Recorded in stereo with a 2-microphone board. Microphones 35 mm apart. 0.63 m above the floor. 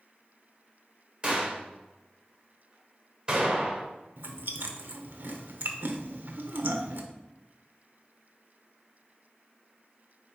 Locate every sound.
1.2 s a gunshot: 30° right (ahead or behind), 2.5 m
4.2 s chewing: 65° right (ahead or behind), 0.9 m